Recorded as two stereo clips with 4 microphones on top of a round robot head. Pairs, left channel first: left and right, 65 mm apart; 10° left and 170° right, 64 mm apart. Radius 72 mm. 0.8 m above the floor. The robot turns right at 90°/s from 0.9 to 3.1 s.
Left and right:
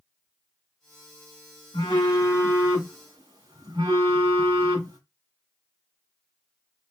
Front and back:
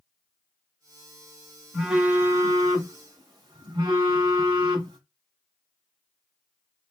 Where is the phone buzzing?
100° left, 0.7 m; by 5.0 s 135° right, 0.7 m.